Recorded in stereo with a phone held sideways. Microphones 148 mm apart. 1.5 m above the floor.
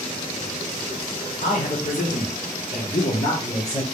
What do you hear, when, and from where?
1.4 s a man speaking: 55° left (ahead or behind), 1.2 m; by 3.8 s 35° left (ahead or behind), 0.9 m